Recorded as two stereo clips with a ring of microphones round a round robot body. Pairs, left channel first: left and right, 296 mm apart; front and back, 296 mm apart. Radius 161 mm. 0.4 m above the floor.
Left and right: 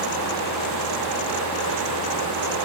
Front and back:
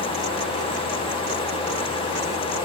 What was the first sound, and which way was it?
Only background noise.